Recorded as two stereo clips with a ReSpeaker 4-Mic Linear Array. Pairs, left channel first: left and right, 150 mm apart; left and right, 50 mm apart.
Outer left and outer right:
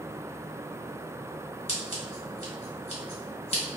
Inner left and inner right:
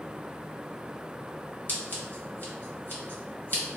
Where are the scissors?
50° left (ahead or behind), 1.5 m.